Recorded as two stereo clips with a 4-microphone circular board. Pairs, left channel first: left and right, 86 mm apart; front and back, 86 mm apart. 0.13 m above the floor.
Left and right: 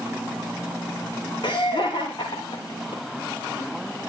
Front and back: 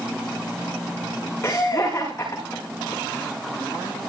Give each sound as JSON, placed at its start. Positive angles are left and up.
{"t": 1.4, "sound": "laughter", "azimuth_deg": 60, "distance_m": 8.5}